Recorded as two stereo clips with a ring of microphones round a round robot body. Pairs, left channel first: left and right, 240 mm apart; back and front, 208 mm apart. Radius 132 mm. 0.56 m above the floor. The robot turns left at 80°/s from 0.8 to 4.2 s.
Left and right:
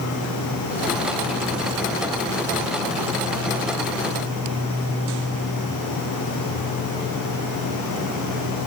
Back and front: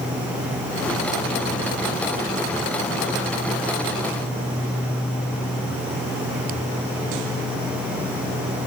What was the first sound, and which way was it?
Only background noise.